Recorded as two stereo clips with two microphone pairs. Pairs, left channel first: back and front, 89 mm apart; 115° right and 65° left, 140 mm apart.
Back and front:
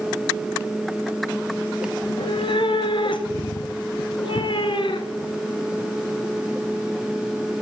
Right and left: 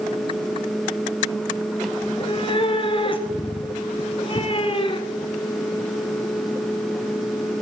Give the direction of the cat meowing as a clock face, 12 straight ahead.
6 o'clock.